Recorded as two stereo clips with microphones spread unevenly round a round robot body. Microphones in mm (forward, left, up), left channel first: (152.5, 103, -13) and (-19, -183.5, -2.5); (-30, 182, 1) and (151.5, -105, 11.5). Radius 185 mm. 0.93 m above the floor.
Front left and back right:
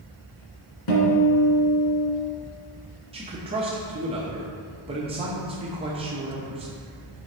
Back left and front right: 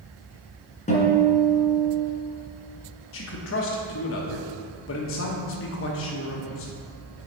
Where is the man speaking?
165° left, 1.0 m.